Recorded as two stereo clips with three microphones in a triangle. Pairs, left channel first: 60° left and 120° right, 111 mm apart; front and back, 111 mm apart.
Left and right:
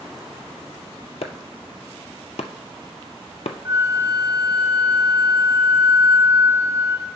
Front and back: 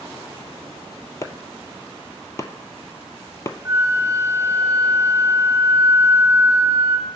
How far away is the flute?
About 0.6 m.